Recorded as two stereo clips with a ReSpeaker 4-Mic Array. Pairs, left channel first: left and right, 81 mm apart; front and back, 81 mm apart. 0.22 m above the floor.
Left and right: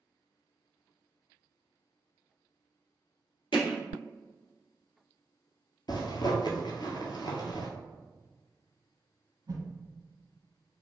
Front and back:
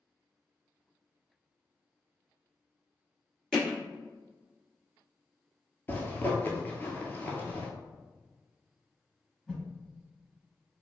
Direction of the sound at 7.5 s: 95° right.